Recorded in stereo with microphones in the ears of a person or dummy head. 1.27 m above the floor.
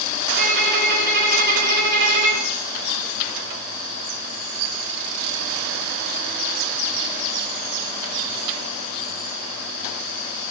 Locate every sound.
0.4 s a violin: 50° right (ahead or behind), 1.9 m